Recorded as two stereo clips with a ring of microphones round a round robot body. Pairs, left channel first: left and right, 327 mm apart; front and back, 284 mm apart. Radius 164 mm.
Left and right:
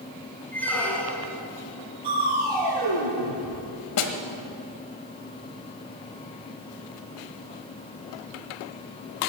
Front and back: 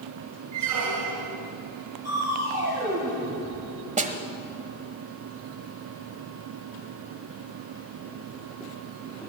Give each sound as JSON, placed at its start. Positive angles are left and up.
{"t": 0.5, "sound": "a squeak", "azimuth_deg": 175, "distance_m": 2.0}
{"t": 2.0, "sound": "crushing", "azimuth_deg": -95, "distance_m": 6.5}
{"t": 4.0, "sound": "a snare drum", "azimuth_deg": 120, "distance_m": 1.4}